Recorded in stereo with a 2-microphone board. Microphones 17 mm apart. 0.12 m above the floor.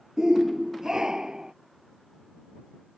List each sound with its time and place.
0.2 s a shout: 40° right (ahead or behind)